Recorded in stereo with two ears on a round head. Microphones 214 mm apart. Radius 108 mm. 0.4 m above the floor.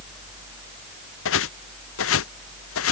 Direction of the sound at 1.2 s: 60° left (ahead or behind).